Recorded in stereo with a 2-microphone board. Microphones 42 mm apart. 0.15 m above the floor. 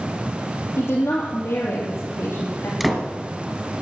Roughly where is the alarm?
No alarm in this recording.